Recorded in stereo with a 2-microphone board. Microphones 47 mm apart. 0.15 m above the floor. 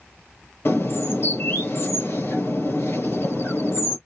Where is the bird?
55° left (ahead or behind), 2 m.